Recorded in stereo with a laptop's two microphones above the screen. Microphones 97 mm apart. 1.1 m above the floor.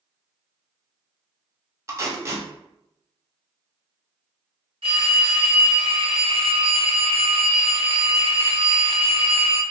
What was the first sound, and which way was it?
Tape being pulled, 30° right (ahead or behind).